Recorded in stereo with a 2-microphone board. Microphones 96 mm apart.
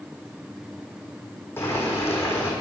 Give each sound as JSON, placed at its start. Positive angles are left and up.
{"t": 1.6, "sound": "boiling", "side_deg": 25, "distance_m": 3.5}